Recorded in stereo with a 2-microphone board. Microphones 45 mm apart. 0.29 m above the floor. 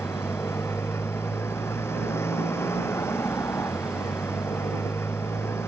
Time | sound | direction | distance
0.0 | a motorcycle | 75° left (ahead or behind) | ?